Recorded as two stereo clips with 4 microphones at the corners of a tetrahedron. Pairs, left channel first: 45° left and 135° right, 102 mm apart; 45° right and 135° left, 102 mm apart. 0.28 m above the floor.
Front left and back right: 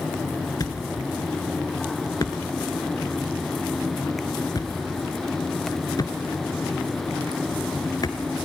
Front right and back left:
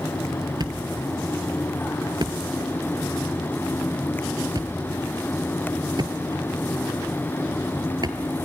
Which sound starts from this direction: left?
A thud, at 0.6 s.